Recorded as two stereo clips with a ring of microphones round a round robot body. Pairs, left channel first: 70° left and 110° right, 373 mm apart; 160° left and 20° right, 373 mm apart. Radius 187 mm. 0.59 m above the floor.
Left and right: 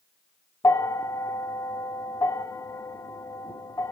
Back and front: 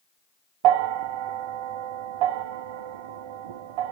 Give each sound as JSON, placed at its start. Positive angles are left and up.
{"t": 0.6, "sound": "a bell", "azimuth_deg": -15, "distance_m": 0.7}